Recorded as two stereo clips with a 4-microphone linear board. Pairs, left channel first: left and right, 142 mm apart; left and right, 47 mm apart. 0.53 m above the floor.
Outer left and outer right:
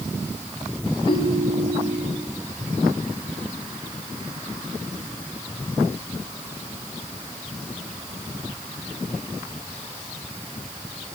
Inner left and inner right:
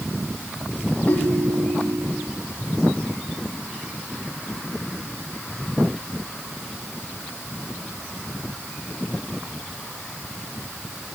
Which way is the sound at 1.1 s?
35° left (ahead or behind).